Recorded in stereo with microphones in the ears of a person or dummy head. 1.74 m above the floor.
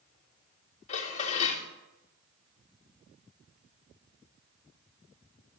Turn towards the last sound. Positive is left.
turn(degrees=40)  # may be behind; listen again after turning